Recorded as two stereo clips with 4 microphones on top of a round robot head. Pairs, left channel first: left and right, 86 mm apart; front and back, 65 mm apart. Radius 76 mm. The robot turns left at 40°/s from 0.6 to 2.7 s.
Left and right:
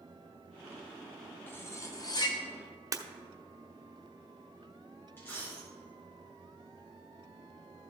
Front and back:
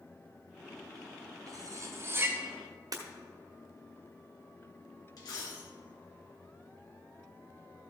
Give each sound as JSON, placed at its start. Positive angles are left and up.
{"t": 1.5, "sound": "cutlery clinking", "azimuth_deg": 155, "distance_m": 1.3}
{"t": 2.9, "sound": "breaking glass", "azimuth_deg": -140, "distance_m": 0.8}
{"t": 5.2, "sound": "a dropped coin", "azimuth_deg": 20, "distance_m": 2.5}